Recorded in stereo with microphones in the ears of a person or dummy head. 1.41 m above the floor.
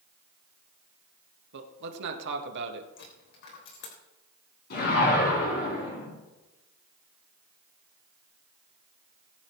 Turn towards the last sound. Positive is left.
turn(degrees=60)  # may be behind; listen again after turning